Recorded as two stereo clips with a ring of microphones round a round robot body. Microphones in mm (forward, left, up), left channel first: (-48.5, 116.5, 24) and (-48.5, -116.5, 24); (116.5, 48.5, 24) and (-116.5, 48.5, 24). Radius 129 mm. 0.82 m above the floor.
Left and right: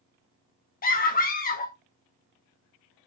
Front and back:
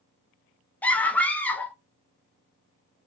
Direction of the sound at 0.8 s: 80° left.